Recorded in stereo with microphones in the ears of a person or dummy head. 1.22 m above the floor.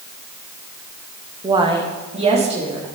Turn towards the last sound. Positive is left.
turn(degrees=-30)  # may be behind; listen again after turning